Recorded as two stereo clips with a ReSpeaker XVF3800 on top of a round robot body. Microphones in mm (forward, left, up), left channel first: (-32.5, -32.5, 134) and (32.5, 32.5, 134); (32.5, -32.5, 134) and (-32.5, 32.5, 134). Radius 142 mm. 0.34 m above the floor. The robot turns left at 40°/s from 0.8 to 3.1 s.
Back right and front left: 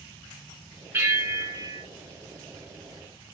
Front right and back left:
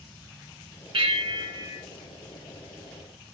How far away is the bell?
About 1.9 m.